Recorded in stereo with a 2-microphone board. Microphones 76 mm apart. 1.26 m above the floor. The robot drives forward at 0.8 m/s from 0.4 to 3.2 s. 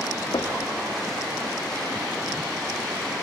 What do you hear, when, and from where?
0.3 s knocking: 75° left (ahead or behind), 2.5 m; by 0.7 s 70° left (ahead or behind), 2.5 m